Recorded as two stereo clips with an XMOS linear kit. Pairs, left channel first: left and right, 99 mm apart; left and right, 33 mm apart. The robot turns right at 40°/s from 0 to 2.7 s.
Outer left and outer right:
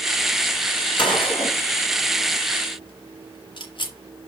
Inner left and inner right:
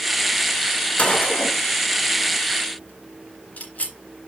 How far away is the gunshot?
About 1.9 m.